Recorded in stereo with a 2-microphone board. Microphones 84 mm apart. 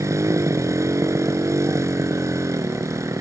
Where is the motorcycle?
35° right (ahead or behind).